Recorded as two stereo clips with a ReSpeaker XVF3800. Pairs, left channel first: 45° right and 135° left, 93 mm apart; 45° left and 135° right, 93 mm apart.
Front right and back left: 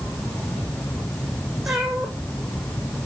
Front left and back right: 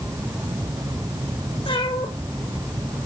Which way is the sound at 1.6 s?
50° left.